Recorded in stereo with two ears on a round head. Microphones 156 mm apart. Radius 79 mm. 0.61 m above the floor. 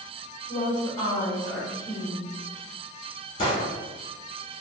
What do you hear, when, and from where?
0.5 s a woman speaking: 25° left (ahead or behind), 1.4 m
3.4 s a gunshot: 35° left (ahead or behind), 2.0 m